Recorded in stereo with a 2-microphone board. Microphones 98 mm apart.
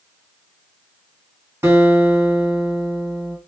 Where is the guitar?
25° right (ahead or behind), 1.8 m.